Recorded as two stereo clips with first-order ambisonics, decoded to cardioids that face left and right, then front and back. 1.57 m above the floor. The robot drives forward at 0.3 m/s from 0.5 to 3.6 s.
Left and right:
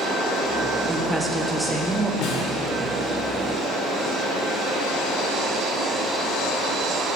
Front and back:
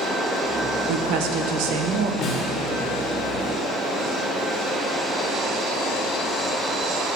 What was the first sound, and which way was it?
A woman speaking, 175° right.